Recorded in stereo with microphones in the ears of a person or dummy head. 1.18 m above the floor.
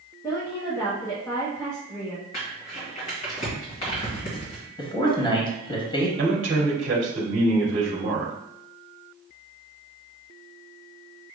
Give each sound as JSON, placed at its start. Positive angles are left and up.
{"t": 0.2, "sound": "a woman speaking", "side_deg": 15, "distance_m": 0.8}
{"t": 2.3, "sound": "crumpling", "side_deg": 45, "distance_m": 1.8}
{"t": 4.8, "sound": "a man speaking", "side_deg": 20, "distance_m": 1.0}
{"t": 6.2, "sound": "a man speaking", "side_deg": -30, "distance_m": 1.3}